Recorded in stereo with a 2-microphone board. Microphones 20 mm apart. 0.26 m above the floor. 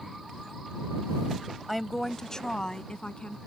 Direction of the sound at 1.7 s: Centre (ahead or behind).